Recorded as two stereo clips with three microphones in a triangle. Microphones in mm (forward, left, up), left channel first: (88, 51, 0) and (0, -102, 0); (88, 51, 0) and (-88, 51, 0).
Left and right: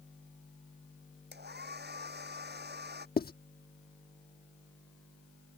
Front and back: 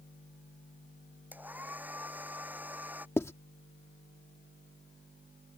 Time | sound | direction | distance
1.3 | a hair dryer | 100° right | ?
3.2 | writing | 75° left | ?